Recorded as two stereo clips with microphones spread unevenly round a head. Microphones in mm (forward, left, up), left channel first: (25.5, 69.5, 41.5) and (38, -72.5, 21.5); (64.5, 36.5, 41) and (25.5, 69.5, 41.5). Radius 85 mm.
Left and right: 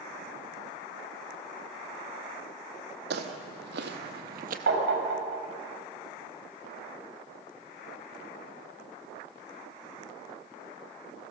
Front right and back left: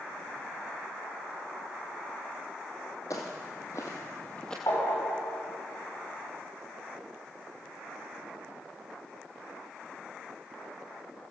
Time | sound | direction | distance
3.1 | footsteps | 95° right | 2 m
4.7 | tapping | 90° right | 5 m